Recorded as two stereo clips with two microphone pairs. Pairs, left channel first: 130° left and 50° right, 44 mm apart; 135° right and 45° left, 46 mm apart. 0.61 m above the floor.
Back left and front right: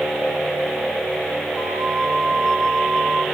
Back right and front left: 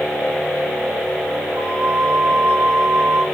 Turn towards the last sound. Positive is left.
turn(degrees=35)